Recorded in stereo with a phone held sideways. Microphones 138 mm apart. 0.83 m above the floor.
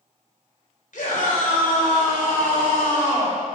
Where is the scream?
70° left (ahead or behind), 3.5 m.